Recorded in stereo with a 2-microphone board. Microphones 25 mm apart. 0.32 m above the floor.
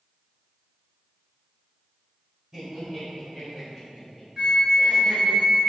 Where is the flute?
25° right (ahead or behind), 0.9 m.